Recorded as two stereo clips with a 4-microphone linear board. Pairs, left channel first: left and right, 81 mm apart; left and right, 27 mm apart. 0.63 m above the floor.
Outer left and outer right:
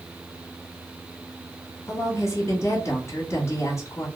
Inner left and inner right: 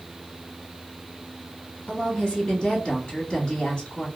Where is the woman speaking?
35° left (ahead or behind), 1.2 m.